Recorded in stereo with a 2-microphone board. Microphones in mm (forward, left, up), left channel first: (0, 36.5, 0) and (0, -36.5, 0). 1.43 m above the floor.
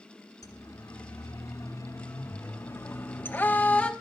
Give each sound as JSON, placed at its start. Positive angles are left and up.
{"t": 0.4, "sound": "a siren", "side_deg": 55, "distance_m": 3.5}